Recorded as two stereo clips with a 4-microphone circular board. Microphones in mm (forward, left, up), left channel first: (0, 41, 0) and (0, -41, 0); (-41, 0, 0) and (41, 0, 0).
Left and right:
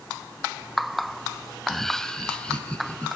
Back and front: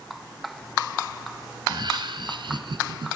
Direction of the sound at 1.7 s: Straight ahead.